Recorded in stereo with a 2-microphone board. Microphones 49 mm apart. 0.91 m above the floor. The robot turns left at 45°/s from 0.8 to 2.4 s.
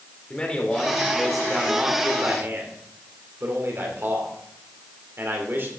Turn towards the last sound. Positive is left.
turn(degrees=-50)